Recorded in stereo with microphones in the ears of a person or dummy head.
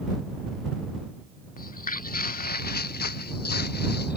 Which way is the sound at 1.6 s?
45° left (ahead or behind).